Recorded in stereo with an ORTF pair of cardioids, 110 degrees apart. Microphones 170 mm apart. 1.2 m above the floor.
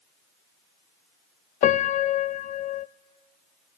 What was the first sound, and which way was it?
A piano, 45° left.